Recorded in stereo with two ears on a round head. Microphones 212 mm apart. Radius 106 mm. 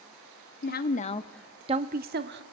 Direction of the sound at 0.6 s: 45° left (ahead or behind).